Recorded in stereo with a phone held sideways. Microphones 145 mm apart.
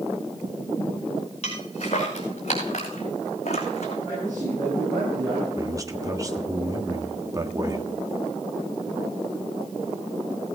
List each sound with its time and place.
1.4 s footsteps: 50° left (ahead or behind), 5.5 m; by 4.0 s 55° left (ahead or behind), 2.5 m
4.0 s a man speaking: 25° right (ahead or behind), 9 m
5.6 s a man speaking: 25° right (ahead or behind), 1.4 m